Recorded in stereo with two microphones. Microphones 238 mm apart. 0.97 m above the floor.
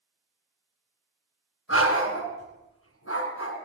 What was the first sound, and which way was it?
A dog barking, 75° left (ahead or behind).